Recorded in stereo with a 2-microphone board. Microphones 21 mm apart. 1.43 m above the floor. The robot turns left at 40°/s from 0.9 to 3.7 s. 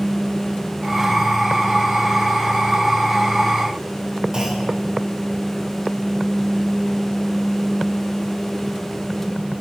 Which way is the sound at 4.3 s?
30° right (ahead or behind).